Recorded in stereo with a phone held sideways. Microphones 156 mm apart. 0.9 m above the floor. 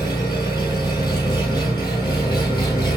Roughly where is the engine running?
Left.